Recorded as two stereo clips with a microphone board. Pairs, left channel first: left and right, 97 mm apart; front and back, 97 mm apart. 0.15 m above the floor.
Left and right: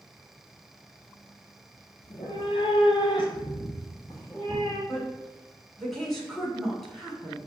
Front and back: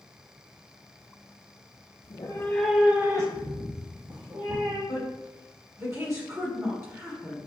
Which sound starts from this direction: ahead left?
A cat meowing, at 2.0 s.